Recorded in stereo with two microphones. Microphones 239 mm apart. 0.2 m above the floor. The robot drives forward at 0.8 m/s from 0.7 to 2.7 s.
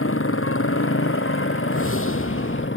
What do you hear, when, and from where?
0.0 s a motorcycle: 65° left (ahead or behind); by 2.8 s 60° left (ahead or behind)
1.7 s a whoosh: 70° left (ahead or behind); by 2.7 s 60° left (ahead or behind)